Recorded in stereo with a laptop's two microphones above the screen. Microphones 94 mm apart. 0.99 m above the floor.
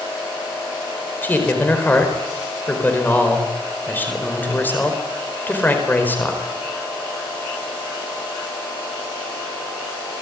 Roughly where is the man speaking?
Centre.